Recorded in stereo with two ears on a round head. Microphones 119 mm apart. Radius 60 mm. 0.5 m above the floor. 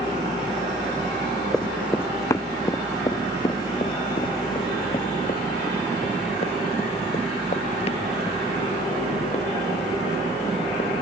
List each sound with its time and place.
1.5 s running footsteps: 5° left (ahead or behind); by 11.0 s 45° left (ahead or behind)